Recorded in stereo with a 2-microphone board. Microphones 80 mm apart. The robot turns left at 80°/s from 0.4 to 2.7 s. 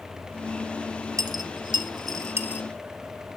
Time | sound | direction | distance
1.2 | a dropped coin | 50° right (ahead or behind) | 1.0 m